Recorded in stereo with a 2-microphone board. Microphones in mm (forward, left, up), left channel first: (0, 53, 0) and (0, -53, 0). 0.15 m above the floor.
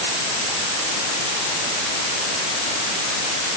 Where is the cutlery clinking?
No cutlery clinking in this recording.